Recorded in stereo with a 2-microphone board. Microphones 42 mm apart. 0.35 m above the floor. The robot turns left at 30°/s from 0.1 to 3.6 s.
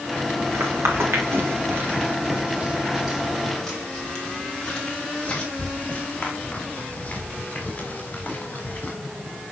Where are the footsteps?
85° right, 6.5 m; by 8.9 s 35° left (ahead or behind), 8 m.